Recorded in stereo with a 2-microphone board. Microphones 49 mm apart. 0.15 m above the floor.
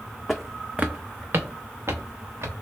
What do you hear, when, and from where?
0.3 s footsteps: 5° left (ahead or behind), 0.5 m; by 2.5 s 70° right (ahead or behind), 1.3 m